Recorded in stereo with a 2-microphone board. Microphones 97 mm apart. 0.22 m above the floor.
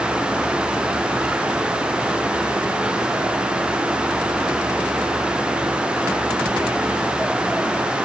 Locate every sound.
Only background noise.